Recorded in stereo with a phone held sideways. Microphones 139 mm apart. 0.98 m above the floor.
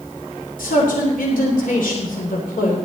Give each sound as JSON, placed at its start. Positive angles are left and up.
{"t": 0.6, "sound": "a man speaking", "side_deg": 80, "distance_m": 3.0}